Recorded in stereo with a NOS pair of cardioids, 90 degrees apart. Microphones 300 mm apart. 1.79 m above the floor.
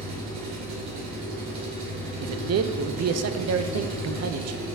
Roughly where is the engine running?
Right.